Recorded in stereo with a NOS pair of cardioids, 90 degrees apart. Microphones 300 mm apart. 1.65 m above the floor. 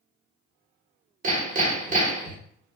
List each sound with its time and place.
1.2 s hammering: 25° right, 1.1 m